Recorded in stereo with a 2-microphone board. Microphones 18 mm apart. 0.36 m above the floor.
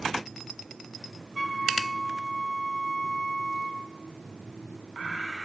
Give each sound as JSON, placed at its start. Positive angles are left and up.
{"t": 1.4, "sound": "a flute", "side_deg": 0, "distance_m": 3.5}